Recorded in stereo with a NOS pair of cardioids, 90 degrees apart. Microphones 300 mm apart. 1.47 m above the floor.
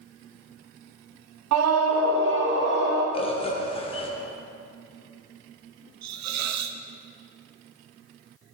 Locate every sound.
1.5 s a scream: 65° right, 0.8 m; by 3.0 s 35° right, 2.5 m
3.1 s a bird: 20° left, 1.3 m
6.0 s a hiss: 65° right, 0.7 m